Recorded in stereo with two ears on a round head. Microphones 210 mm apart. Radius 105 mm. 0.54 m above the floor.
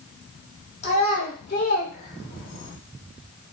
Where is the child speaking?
30° left (ahead or behind), 1.2 m; by 2.8 s 15° left (ahead or behind), 0.7 m.